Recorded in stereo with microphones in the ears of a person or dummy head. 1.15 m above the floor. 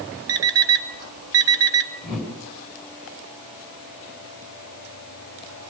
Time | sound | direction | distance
0.3 | an alarm clock | 70° right (ahead or behind) | 1.7 m
2.0 | a whoosh | 5° right (ahead or behind) | 5.5 m